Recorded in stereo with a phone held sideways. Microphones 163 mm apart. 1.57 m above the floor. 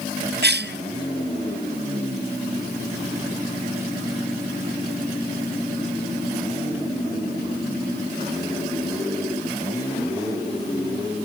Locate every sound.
0.4 s a cough: 75° right (ahead or behind), 0.6 m